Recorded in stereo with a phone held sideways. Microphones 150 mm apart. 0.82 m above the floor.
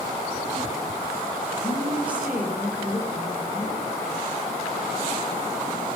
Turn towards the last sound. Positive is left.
turn(degrees=-10)  # may be behind; listen again after turning